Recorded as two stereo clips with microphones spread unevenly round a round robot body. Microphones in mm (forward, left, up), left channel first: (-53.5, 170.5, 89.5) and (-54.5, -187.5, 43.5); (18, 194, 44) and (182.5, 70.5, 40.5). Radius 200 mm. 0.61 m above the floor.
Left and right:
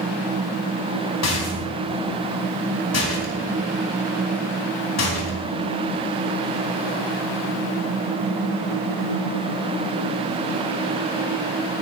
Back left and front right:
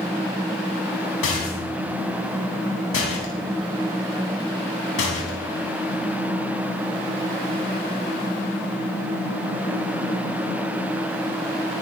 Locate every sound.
1.2 s a rattle: 135° left, 3.5 m